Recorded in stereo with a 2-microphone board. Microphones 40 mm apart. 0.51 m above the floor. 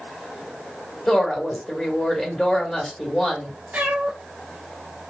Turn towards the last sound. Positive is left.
turn(degrees=-40)  # may be behind; listen again after turning